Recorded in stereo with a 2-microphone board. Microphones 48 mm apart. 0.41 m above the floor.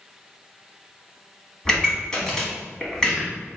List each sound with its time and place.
1.6 s a pop: 15° left (ahead or behind), 1.2 m